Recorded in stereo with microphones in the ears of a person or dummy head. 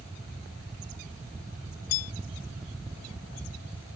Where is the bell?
90° left.